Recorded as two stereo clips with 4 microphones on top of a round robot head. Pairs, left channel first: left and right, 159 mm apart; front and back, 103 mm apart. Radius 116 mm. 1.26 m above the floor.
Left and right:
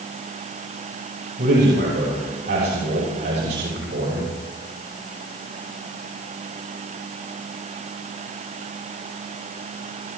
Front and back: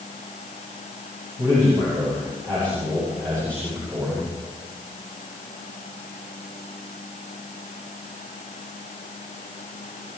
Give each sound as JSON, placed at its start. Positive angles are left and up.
{"t": 1.4, "sound": "a man speaking", "azimuth_deg": -110, "distance_m": 6.5}